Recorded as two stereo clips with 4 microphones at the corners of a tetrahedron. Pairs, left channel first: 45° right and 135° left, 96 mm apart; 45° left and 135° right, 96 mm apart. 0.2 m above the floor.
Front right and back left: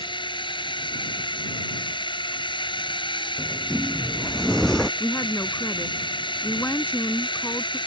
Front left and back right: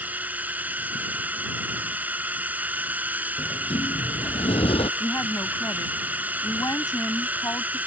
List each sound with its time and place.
0.0 s a drone: 65° right
3.4 s a sliding door: 40° left
5.0 s a woman speaking: 10° left